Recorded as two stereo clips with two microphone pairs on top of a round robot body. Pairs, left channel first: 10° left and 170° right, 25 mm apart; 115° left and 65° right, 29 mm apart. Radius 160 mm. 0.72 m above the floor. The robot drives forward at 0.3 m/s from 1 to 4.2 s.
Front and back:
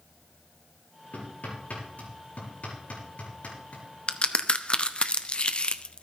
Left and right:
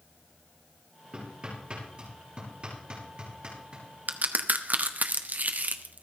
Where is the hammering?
10° right, 6.5 m.